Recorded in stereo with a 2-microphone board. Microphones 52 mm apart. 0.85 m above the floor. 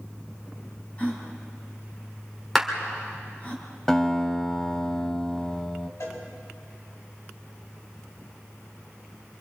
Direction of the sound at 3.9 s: 10° left (ahead or behind).